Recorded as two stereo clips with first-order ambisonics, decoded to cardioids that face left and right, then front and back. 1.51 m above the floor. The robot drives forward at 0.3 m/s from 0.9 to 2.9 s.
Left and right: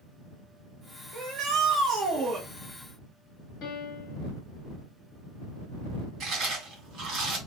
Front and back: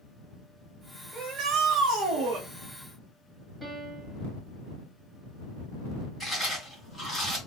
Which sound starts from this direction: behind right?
A shout, at 1.1 s.